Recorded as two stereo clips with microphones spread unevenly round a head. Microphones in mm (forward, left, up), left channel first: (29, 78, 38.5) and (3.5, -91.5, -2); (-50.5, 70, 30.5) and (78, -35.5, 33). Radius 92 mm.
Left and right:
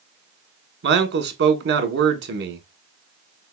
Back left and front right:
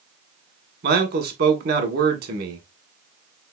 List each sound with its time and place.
0.8 s a man speaking: 75° right, 1.1 m